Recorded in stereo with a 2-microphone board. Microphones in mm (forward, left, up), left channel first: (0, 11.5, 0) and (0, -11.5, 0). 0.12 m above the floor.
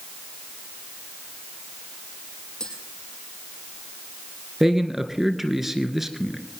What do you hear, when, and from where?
2.6 s tapping: 35° left (ahead or behind), 5.5 m
4.6 s a man speaking: 15° right (ahead or behind), 2 m